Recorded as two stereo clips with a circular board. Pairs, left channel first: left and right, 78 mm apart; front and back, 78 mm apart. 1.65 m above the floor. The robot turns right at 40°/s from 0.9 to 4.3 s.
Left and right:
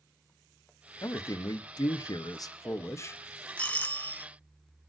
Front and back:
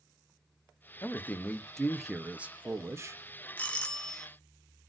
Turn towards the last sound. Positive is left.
turn(degrees=70)